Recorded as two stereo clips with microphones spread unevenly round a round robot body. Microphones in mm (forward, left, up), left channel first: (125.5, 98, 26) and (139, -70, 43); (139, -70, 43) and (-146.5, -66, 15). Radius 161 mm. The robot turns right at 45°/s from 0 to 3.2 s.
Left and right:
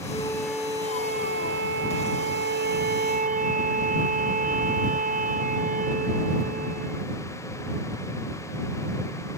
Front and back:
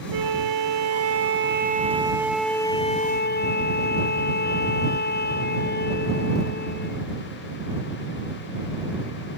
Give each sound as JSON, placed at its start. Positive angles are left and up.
{"t": 0.1, "sound": "a flute", "azimuth_deg": 165}